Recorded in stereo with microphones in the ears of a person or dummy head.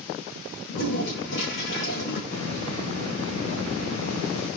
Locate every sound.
0.7 s a toilet flushing: 70° left (ahead or behind), 8.5 m
2.3 s a hiss: 90° left, 8 m